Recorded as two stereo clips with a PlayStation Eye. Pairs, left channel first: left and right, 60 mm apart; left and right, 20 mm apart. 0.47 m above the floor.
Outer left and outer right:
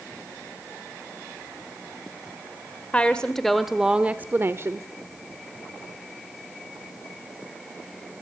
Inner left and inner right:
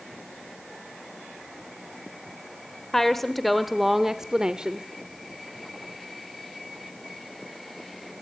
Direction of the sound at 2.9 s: 20° left (ahead or behind).